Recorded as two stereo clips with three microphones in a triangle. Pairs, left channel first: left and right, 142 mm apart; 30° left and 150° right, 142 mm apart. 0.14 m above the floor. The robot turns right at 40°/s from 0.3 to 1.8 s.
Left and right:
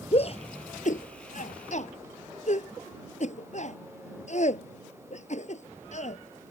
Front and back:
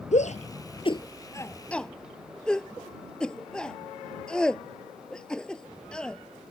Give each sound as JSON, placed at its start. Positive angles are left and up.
{"t": 0.1, "sound": "a shout", "azimuth_deg": 55}